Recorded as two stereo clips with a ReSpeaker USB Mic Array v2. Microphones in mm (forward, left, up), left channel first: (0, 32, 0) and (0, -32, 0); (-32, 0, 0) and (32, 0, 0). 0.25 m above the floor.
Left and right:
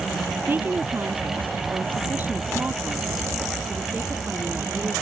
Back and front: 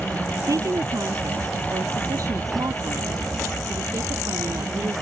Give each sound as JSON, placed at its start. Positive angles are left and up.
{"t": 0.5, "sound": "a woman speaking", "azimuth_deg": -30}